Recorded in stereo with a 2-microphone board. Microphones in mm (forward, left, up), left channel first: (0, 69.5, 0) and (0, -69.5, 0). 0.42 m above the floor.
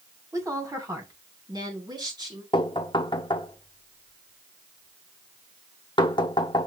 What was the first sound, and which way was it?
A woman speaking, 20° right (ahead or behind).